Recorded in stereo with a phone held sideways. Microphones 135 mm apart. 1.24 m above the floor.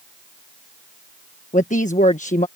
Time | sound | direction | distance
1.5 | a woman speaking | 70° left (ahead or behind) | ?